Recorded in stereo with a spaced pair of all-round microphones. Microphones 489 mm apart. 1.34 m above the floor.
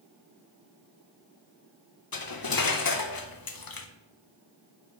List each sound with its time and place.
2.1 s cutlery clinking: 45° left (ahead or behind), 0.6 m